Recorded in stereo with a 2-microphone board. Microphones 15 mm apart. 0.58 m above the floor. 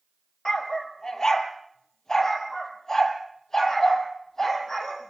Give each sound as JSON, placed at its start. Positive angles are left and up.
{"t": 0.5, "sound": "a dog barking", "side_deg": 45, "distance_m": 3.5}